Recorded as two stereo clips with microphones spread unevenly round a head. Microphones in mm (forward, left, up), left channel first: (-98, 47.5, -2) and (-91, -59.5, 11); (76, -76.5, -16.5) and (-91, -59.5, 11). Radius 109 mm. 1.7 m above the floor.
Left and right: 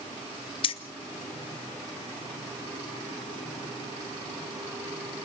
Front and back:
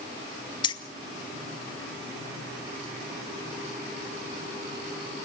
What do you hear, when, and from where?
0.6 s keys jangling: 60° left, 0.7 m